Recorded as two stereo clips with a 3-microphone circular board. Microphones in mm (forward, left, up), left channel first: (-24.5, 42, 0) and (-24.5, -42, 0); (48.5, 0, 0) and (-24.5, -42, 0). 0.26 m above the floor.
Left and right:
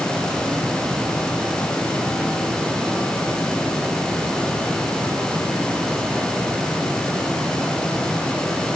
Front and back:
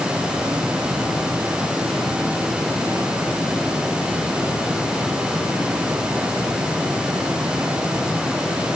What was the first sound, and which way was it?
Only background noise.